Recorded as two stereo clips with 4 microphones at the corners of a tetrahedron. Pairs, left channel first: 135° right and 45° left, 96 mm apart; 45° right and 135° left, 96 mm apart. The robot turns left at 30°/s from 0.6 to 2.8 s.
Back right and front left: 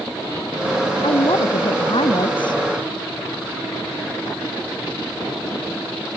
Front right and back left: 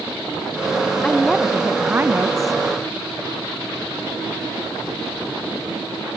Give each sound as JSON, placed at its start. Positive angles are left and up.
{"t": 1.0, "sound": "a woman speaking", "azimuth_deg": -125}